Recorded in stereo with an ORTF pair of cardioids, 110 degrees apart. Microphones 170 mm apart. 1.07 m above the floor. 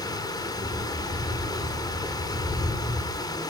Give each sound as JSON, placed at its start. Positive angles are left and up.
{"t": 0.0, "sound": "running water", "azimuth_deg": 20, "distance_m": 3.5}